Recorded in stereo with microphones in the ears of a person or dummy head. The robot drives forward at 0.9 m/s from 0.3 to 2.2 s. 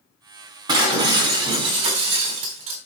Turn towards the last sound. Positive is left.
turn(degrees=-35)  # may be behind; listen again after turning